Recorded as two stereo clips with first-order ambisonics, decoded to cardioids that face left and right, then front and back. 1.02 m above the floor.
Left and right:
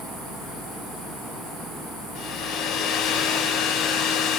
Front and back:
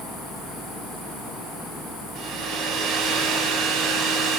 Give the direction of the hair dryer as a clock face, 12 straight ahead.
8 o'clock.